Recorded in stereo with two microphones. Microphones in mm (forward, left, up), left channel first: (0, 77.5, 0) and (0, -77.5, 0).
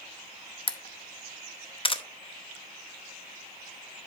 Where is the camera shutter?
35° left (ahead or behind), 0.7 m.